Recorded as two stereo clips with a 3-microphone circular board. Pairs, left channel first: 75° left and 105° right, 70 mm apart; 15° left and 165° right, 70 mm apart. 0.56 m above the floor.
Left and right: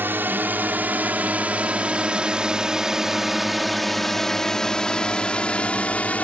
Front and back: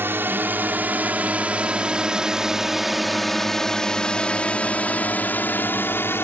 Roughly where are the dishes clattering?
No dishes clattering in this recording.